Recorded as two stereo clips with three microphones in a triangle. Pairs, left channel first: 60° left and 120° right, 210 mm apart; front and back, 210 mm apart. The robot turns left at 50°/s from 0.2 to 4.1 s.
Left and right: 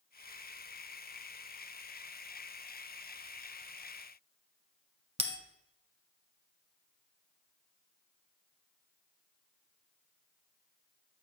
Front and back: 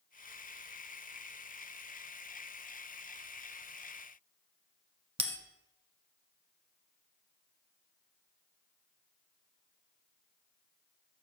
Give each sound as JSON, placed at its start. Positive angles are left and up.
{"t": 5.2, "sound": "a bell", "azimuth_deg": -150, "distance_m": 1.0}